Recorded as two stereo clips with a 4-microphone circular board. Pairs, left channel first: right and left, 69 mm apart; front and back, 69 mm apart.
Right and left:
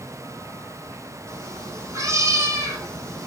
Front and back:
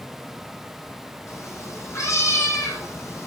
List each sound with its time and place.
1.3 s a cat meowing: 45° left, 6 m